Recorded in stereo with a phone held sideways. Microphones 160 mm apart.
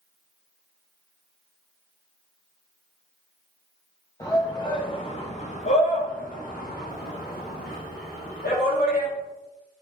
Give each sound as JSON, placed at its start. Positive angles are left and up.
{"t": 4.2, "sound": "a shout", "side_deg": 20, "distance_m": 1.6}